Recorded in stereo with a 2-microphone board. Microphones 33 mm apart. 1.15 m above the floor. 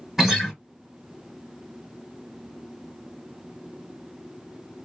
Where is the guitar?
10° right (ahead or behind), 1.7 m.